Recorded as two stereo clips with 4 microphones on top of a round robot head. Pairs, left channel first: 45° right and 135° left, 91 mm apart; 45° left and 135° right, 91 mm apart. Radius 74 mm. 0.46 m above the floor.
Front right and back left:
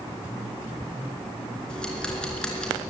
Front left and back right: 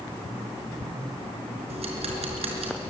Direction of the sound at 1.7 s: 130° right.